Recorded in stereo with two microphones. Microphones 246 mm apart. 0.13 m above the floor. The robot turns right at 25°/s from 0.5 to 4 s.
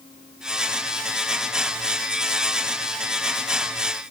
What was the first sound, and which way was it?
Only background noise.